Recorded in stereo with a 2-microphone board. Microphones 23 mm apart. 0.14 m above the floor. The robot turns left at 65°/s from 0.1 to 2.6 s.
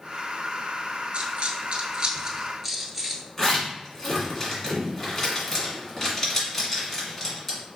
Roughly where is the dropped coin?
Right.